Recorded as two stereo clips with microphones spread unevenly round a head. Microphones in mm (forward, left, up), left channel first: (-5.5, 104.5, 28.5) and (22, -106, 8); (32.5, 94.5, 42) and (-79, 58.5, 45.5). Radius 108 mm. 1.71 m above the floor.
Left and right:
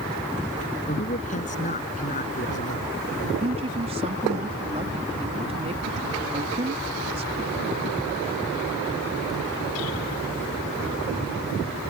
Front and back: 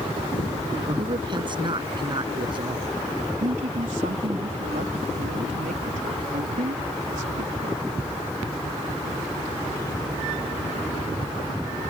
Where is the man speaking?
150° left.